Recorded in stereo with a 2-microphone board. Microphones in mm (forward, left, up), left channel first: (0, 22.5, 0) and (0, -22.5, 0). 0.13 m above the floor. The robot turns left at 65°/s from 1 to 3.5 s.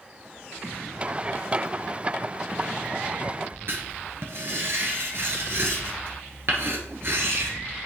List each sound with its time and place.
3.7 s writing: 55° right (ahead or behind), 1.8 m